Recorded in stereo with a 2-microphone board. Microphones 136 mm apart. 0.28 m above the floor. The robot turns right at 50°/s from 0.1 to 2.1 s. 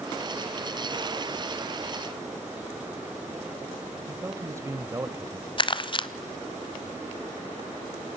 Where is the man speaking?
20° right (ahead or behind), 0.9 m.